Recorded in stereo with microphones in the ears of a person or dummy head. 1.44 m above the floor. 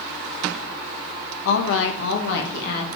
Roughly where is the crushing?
No crushing in this recording.